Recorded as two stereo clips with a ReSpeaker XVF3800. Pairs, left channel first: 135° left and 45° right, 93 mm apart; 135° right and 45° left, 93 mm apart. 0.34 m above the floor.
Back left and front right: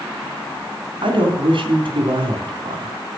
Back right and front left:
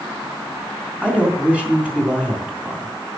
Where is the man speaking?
30° right, 3 m.